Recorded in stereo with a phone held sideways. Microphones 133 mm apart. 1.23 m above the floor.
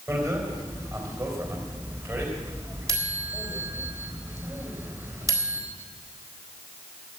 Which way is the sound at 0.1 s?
25° right (ahead or behind).